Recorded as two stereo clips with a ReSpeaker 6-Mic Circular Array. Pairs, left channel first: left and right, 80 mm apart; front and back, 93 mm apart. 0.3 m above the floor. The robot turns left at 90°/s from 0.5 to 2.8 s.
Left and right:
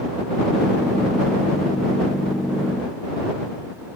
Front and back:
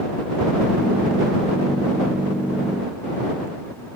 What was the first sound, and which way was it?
Only background noise.